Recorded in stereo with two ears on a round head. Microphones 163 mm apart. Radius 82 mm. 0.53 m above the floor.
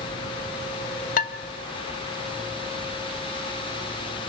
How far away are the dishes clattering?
About 1.2 m.